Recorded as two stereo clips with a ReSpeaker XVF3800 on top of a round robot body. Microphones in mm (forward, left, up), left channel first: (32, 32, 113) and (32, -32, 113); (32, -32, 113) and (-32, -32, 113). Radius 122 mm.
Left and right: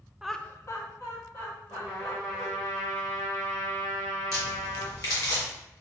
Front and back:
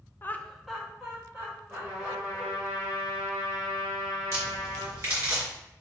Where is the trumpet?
115° left, 1.2 m.